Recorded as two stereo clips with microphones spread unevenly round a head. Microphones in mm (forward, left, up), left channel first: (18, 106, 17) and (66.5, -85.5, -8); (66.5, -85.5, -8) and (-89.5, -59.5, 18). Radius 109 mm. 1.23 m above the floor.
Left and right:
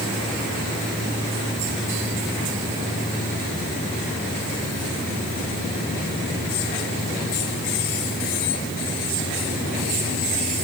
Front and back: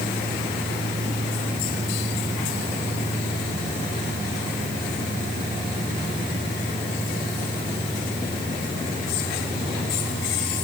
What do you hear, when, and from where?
Only background noise.